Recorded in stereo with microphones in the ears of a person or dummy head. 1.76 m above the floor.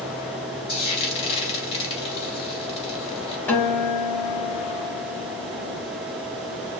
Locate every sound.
0.7 s frying: 35° left (ahead or behind), 3 m
3.5 s a guitar: 10° left (ahead or behind), 2.5 m